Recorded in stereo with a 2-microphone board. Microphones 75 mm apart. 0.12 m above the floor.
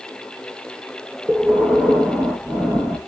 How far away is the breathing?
About 0.8 m.